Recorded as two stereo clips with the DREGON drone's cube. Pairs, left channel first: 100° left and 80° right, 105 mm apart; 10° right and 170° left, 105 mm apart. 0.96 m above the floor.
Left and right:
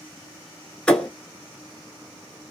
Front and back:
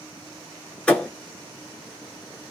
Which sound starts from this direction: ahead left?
A thud, at 0.9 s.